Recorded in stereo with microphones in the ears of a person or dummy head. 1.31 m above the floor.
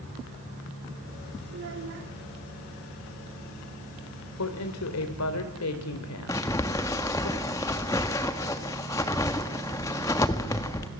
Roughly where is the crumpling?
Centre.